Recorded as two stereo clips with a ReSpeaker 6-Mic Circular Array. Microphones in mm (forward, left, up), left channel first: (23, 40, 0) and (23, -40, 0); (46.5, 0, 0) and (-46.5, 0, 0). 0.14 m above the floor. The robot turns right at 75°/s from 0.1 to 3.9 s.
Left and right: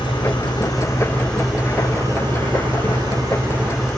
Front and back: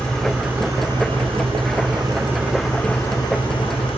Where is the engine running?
80° left, 7.5 m; by 4.0 s 5° left, 7.5 m.